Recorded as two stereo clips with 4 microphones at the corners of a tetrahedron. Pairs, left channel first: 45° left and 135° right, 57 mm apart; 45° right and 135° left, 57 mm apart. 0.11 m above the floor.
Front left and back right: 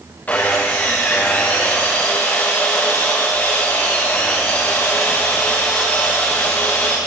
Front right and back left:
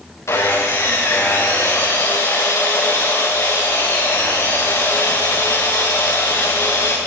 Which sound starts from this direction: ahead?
Sawing, at 0.3 s.